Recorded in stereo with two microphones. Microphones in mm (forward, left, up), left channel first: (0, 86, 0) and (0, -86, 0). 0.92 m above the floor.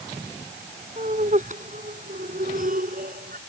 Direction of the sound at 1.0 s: 45° right (ahead or behind).